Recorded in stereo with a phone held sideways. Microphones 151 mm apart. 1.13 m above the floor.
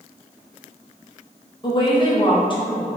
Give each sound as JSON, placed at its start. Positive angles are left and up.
{"t": 1.6, "sound": "a woman speaking", "side_deg": 35, "distance_m": 0.9}